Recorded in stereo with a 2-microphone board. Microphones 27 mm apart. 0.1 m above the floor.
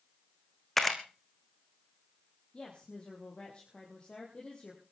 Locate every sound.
0.8 s a camera shutter: 10° left (ahead or behind), 2.5 m
2.5 s a woman speaking: 30° left (ahead or behind), 4.5 m